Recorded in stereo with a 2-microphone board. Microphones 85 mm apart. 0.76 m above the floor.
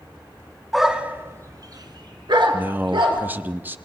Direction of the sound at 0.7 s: Centre (ahead or behind).